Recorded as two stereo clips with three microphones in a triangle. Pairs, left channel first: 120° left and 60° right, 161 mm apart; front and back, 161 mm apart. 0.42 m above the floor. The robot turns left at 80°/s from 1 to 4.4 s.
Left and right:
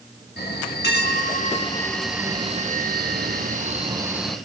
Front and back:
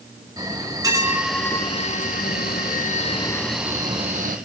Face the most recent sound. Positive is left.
turn(degrees=-160)